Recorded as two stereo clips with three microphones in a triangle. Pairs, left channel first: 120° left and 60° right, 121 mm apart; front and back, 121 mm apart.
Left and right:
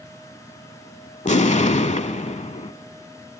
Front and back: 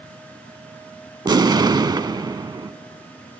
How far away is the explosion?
About 0.5 m.